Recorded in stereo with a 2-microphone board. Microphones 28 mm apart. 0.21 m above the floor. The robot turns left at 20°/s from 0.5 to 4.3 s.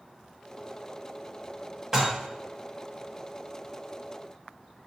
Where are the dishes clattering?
20° right (ahead or behind), 0.9 m.